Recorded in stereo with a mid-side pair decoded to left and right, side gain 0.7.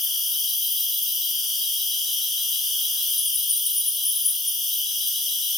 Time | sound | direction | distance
0.0 | an insect | 15° left | 0.8 m